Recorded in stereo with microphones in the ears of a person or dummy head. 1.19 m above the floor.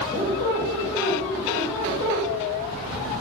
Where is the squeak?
15° right (ahead or behind), 1.3 m.